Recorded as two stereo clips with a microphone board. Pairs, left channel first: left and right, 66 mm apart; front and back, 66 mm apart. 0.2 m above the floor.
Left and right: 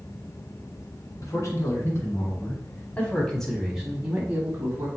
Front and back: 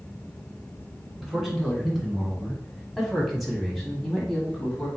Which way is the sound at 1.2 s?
95° left.